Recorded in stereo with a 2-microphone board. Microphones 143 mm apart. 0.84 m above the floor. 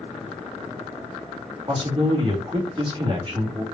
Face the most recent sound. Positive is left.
turn(degrees=-40)  # may be behind; listen again after turning